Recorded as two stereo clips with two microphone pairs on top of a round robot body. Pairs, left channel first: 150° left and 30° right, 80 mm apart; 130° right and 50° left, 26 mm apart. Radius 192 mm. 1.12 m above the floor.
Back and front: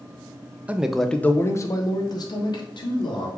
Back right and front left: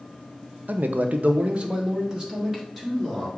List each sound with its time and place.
0.7 s a man speaking: 45° left, 0.5 m; by 3.3 s 130° left, 1.3 m